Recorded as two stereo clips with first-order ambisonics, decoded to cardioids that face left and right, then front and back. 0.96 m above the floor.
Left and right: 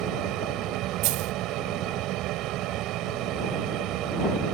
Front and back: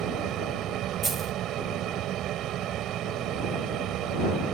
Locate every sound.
0.0 s an aircraft: 130° right
1.0 s a dropped coin: 105° right